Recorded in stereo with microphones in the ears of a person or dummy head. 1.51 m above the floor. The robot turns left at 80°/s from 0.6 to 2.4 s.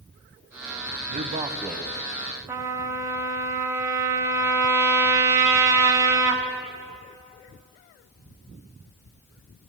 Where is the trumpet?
15° right (ahead or behind), 1.0 m.